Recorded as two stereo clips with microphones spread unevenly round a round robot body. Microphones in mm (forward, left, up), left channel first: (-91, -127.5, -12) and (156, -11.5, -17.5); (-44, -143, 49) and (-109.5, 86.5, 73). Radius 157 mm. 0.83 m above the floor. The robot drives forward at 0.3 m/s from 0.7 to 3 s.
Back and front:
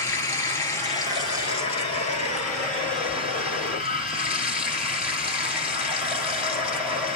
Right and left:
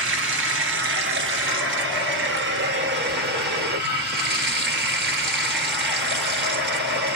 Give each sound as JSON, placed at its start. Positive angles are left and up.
{"t": 0.0, "sound": "running water", "azimuth_deg": 125, "distance_m": 1.5}